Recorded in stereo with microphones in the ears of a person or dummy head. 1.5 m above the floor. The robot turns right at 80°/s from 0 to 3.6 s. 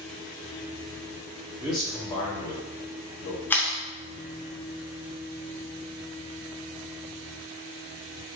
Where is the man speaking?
15° right (ahead or behind), 0.8 m; by 3.4 s 45° left (ahead or behind), 0.8 m.